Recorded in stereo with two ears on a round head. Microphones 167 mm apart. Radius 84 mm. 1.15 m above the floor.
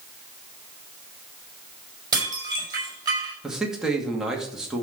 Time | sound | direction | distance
2.1 | dishes clattering | 20° right (ahead or behind) | 4.5 m
3.4 | a man speaking | 5° right (ahead or behind) | 2.5 m